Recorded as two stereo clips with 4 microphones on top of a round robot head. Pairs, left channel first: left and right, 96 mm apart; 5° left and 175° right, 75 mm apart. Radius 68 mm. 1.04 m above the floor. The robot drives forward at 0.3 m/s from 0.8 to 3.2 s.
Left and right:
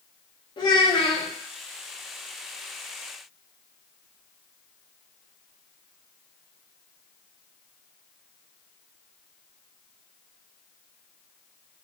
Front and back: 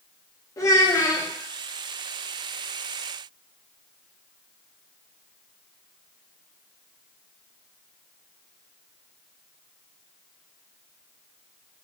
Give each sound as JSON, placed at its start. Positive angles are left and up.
{"t": 0.6, "sound": "a child speaking", "azimuth_deg": 50, "distance_m": 0.8}